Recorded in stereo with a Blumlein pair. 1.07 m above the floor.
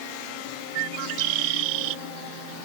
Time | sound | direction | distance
0.8 | a bird | 45° right | ?